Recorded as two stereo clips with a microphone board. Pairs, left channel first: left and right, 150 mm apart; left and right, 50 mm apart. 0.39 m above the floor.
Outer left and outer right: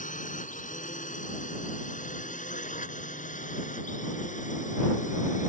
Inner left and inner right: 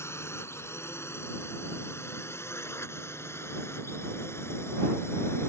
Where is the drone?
60° left (ahead or behind).